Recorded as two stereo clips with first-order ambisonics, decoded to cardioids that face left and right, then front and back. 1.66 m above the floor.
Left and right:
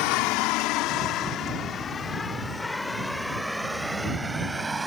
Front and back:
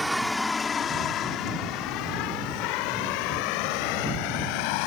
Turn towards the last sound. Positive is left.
turn(degrees=-10)